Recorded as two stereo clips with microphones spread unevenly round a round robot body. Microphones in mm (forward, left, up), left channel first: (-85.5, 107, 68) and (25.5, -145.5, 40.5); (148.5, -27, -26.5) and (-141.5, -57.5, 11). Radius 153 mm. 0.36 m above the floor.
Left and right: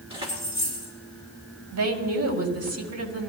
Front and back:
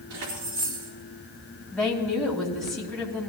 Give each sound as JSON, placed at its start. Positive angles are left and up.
{"t": 0.1, "sound": "keys jangling", "azimuth_deg": -135, "distance_m": 4.0}
{"t": 1.7, "sound": "a woman speaking", "azimuth_deg": -75, "distance_m": 2.5}